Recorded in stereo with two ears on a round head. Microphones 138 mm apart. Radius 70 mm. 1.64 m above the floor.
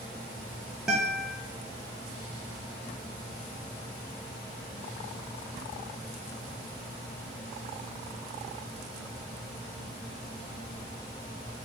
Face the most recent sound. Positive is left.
turn(degrees=-5)  # may be behind; listen again after turning